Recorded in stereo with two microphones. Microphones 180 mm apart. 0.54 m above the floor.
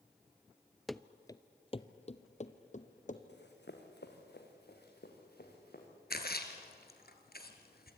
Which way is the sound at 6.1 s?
60° left (ahead or behind).